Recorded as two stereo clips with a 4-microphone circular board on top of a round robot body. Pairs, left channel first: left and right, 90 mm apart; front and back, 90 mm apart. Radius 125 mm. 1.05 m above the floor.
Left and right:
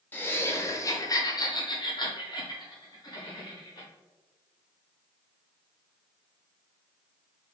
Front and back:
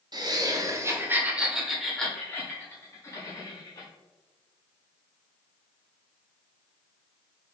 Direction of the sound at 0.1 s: 155° left.